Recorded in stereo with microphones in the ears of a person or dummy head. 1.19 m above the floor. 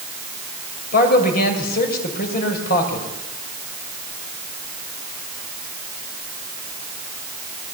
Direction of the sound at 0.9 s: 50° left (ahead or behind).